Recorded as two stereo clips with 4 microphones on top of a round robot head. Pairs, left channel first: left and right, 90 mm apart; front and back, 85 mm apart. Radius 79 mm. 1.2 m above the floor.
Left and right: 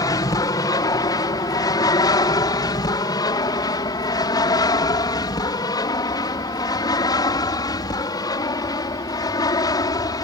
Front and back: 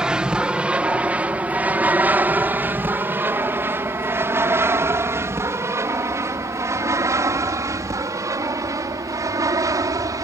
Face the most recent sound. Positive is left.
turn(degrees=135)